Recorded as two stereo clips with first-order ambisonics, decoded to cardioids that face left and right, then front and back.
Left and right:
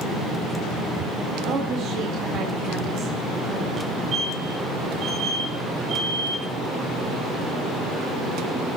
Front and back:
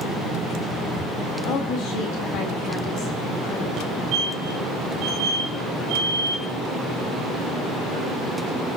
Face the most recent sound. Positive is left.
turn(degrees=-150)